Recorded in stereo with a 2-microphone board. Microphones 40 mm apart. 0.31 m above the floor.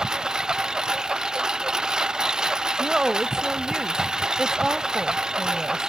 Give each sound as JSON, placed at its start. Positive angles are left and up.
{"t": 0.0, "sound": "a lawn mower", "side_deg": -15}
{"t": 2.8, "sound": "a woman speaking", "side_deg": -15}